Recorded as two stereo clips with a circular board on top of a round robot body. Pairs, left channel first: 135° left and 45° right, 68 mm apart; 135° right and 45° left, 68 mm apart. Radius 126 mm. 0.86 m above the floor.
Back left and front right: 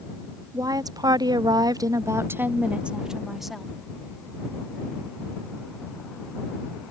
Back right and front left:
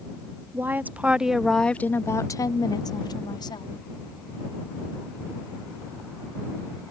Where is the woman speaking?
15° right; by 3.7 s 135° right.